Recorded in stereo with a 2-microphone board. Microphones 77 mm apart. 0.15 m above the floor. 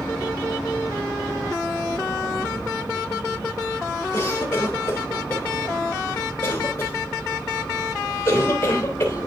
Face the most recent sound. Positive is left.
turn(degrees=30)  # may be behind; listen again after turning